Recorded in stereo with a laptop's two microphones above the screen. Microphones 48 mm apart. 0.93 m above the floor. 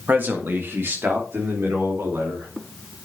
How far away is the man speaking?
About 1.4 m.